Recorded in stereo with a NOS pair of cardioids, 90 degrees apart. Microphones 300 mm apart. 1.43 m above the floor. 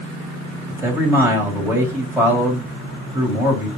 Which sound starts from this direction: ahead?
A man speaking, at 0.7 s.